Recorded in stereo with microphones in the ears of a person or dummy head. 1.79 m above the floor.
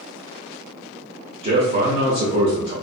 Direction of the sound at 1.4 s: 35° right (ahead or behind).